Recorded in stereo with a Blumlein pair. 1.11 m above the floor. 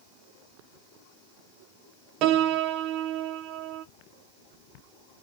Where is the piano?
40° right, 0.6 m.